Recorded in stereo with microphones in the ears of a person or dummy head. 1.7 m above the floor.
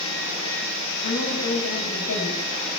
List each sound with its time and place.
1.0 s a woman speaking: 80° left, 9.5 m